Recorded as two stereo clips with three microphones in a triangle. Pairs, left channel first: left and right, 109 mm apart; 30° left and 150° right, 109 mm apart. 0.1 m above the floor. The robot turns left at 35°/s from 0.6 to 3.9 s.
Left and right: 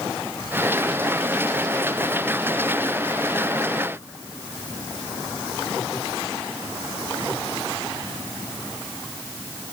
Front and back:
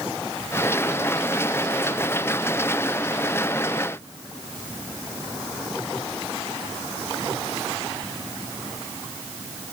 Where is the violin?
No violin in this recording.